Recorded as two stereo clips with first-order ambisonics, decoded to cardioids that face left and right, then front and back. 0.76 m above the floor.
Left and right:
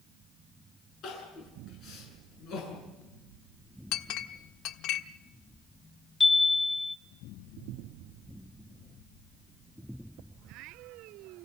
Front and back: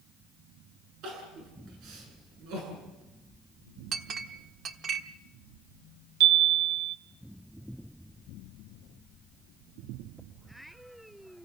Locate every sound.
1.0 s crying: 140° left, 8 m
3.9 s a clink: 120° left, 1.2 m
6.2 s a chime: 165° left, 1.3 m